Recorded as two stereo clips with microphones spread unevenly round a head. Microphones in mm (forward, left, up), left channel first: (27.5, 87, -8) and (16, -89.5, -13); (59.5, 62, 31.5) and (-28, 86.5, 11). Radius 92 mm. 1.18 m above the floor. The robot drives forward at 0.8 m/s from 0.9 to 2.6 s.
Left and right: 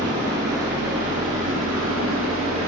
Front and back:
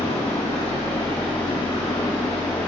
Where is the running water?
70° right, 3 m; by 2.7 s 95° right, 3 m.